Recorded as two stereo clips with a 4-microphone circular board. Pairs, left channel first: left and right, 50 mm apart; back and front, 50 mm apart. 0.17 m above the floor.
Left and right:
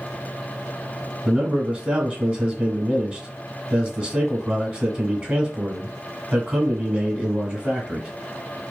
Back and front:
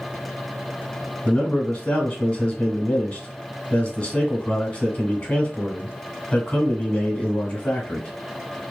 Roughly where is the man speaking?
Behind right.